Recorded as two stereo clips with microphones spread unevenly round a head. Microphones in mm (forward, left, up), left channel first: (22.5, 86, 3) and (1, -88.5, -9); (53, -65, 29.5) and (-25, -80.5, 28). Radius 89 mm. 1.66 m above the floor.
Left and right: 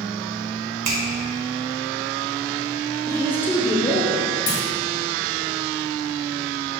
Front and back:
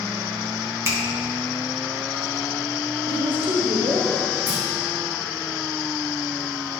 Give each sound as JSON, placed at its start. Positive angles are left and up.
{"t": 0.8, "sound": "a finger snap", "azimuth_deg": -115, "distance_m": 2.0}
{"t": 3.1, "sound": "a woman speaking", "azimuth_deg": 160, "distance_m": 1.0}
{"t": 4.5, "sound": "a clunk", "azimuth_deg": 115, "distance_m": 1.1}